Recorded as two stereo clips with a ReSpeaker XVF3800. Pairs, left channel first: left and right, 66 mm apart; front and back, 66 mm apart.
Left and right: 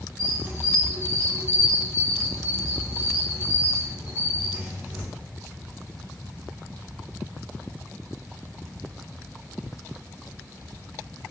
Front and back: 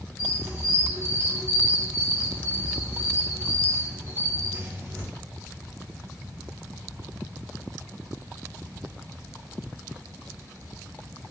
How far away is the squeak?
About 1.2 m.